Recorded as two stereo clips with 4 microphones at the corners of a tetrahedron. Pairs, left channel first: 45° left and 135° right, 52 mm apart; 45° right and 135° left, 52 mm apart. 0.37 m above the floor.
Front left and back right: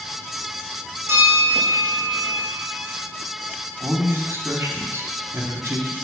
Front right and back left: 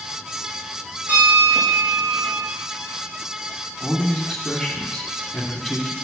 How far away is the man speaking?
About 2.5 m.